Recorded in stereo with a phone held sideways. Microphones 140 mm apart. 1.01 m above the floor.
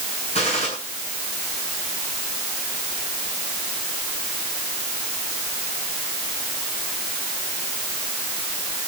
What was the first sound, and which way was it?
A gunshot, 50° left (ahead or behind).